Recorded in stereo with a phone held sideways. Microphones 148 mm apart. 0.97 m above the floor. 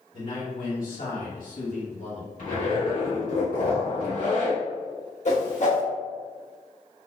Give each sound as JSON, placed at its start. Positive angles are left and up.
{"t": 0.1, "sound": "a man speaking", "side_deg": 65, "distance_m": 1.9}
{"t": 2.4, "sound": "a zipper", "side_deg": 70, "distance_m": 2.0}
{"t": 5.2, "sound": "a whoosh", "side_deg": 55, "distance_m": 1.1}